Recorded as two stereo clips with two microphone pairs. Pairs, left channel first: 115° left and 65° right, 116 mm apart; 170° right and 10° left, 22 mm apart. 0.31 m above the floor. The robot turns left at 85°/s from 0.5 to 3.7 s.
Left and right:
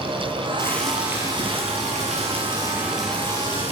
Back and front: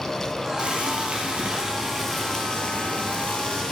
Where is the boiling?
50° left, 4.5 m; by 3.7 s 145° left, 4.5 m.